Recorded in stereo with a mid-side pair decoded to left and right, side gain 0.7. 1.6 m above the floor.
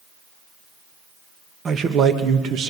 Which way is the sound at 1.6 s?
35° right.